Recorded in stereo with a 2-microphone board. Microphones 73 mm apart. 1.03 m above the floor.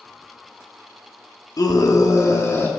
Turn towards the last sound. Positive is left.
turn(degrees=35)  # may be behind; listen again after turning